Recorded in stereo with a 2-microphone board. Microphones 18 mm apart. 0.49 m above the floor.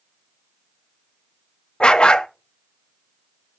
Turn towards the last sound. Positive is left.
turn(degrees=65)  # may be behind; listen again after turning